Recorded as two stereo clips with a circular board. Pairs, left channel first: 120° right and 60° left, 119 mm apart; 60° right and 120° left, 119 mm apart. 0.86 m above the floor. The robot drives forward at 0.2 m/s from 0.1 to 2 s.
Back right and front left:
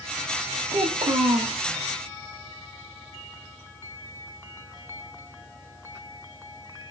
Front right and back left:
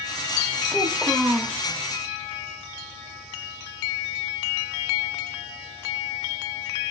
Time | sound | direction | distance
0.7 | a child speaking | 25° left | 0.8 m